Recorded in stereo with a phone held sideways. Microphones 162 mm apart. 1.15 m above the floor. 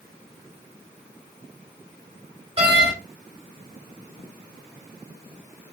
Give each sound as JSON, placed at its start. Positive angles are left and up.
{"t": 2.6, "sound": "a door slam", "side_deg": -35, "distance_m": 3.0}